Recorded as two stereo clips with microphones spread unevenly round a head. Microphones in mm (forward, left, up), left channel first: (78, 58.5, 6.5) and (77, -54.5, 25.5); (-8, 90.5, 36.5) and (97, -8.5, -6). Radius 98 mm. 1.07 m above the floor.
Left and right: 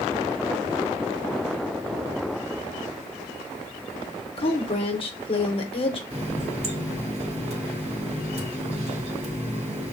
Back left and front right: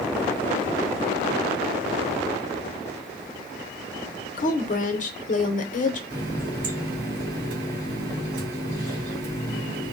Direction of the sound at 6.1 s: 65° right.